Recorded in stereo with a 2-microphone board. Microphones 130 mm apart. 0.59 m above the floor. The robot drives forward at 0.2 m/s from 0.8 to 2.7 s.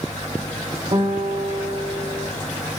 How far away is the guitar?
About 0.7 m.